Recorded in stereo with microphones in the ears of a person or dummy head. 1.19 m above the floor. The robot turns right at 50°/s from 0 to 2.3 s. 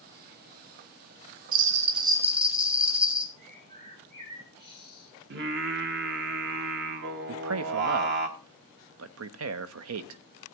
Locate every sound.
1.5 s a bell: 50° right, 0.9 m; by 3.3 s 10° right, 0.9 m
3.4 s a bird: 60° right (ahead or behind), 3.5 m
5.3 s singing: 55° right (ahead or behind), 1.3 m
7.3 s a man speaking: 80° right, 0.7 m